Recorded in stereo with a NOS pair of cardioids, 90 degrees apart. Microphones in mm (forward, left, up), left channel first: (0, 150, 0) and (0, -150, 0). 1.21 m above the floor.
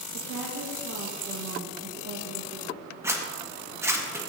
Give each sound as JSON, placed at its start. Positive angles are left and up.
{"t": 0.1, "sound": "a woman speaking", "azimuth_deg": -55, "distance_m": 1.4}
{"t": 3.0, "sound": "a zipper", "azimuth_deg": -10, "distance_m": 1.6}